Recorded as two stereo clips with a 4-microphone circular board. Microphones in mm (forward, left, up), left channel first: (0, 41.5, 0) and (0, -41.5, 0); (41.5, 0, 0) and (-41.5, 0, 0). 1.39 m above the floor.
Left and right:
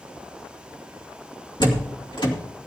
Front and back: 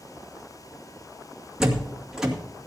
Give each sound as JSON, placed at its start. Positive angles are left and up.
{"t": 1.6, "sound": "a door slam", "azimuth_deg": 100, "distance_m": 2.5}